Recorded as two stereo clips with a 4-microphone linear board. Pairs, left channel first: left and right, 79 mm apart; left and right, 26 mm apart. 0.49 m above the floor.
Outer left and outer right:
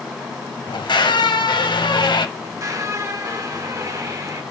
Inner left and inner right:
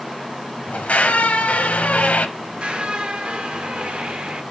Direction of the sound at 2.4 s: 45° right (ahead or behind).